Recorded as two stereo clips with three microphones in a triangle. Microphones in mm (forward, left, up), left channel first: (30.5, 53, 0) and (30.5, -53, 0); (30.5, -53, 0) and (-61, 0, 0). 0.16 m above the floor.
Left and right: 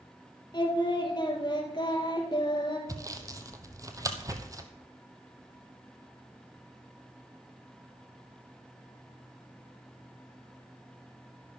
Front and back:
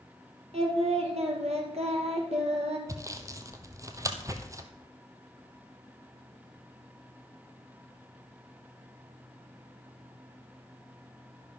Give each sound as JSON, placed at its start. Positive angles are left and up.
{"t": 0.5, "sound": "singing", "azimuth_deg": 135, "distance_m": 2.0}
{"t": 2.9, "sound": "sawing", "azimuth_deg": -150, "distance_m": 1.1}